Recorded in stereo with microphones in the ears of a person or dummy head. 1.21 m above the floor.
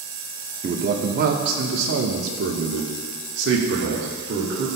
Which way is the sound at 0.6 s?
40° right (ahead or behind).